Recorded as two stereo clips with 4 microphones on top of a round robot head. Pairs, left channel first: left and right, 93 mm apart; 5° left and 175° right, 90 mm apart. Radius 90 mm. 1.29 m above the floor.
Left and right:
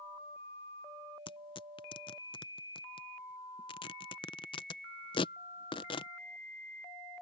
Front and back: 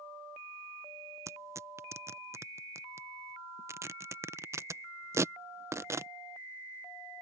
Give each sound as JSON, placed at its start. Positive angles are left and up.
{"t": 1.3, "sound": "tearing paper", "azimuth_deg": 125}